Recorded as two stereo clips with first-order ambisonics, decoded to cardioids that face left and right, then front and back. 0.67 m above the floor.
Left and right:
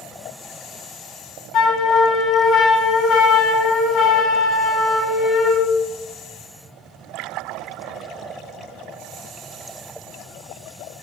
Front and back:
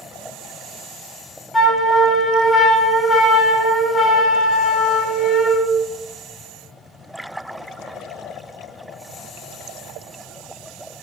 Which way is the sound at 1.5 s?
70° left.